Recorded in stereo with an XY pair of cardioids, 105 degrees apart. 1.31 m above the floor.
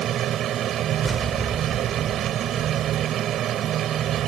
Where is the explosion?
20° right.